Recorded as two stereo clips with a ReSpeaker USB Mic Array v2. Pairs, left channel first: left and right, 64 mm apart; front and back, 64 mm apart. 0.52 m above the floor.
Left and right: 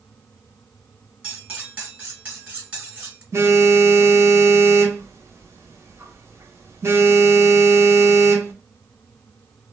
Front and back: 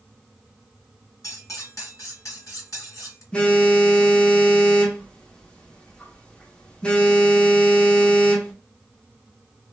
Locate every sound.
1.2 s cutlery clinking: 20° right, 1.3 m
3.3 s a phone buzzing: 65° right, 0.7 m